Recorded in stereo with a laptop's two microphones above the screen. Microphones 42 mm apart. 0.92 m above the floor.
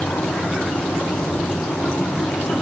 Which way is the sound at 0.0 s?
70° left (ahead or behind).